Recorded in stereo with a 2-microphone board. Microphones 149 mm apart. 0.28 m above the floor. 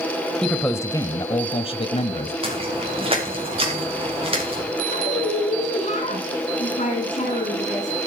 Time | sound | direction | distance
0.4 | a man speaking | 5° left (ahead or behind) | 1.0 m
2.4 | footsteps | 40° right (ahead or behind) | 5.5 m
4.9 | a woman speaking | 55° left (ahead or behind) | 3 m